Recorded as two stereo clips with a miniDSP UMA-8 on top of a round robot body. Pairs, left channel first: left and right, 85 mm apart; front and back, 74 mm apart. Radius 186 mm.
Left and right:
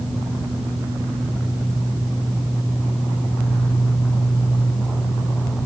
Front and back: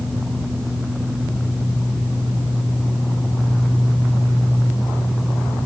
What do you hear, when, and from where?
Only background noise.